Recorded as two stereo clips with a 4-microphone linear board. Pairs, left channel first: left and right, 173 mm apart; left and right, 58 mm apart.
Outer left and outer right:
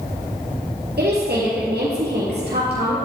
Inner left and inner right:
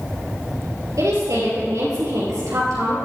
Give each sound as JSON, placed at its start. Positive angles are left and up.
{"t": 1.0, "sound": "a woman speaking", "side_deg": -70, "distance_m": 3.0}